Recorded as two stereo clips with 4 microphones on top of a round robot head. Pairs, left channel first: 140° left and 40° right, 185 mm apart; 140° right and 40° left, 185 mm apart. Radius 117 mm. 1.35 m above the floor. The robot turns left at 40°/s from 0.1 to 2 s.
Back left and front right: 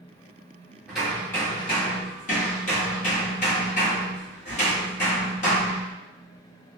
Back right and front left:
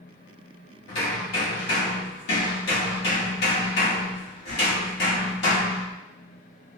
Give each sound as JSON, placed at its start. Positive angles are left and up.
{"t": 0.9, "sound": "hammering", "azimuth_deg": -125, "distance_m": 1.0}